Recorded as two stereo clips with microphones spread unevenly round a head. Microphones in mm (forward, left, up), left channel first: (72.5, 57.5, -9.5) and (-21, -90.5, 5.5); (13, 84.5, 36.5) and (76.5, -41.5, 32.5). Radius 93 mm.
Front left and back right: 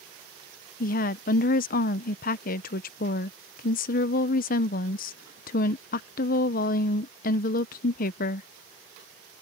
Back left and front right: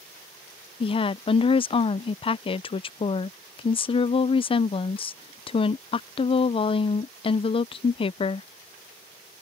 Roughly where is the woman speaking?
Left.